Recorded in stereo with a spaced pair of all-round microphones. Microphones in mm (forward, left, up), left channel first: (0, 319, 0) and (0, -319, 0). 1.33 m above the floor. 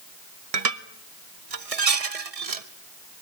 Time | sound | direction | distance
0.5 | dishes clattering | 70° right (ahead or behind) | 1.1 m